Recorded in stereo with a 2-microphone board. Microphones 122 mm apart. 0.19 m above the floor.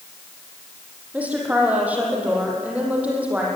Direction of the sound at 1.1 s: 10° right (ahead or behind).